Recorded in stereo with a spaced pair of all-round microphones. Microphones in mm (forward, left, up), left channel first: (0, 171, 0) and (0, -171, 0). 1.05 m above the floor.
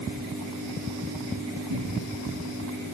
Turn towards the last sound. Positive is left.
turn(degrees=-85)